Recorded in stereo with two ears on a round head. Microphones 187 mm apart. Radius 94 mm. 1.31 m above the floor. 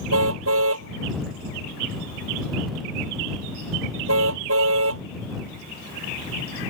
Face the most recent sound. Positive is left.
turn(degrees=-75)  # may be behind; listen again after turning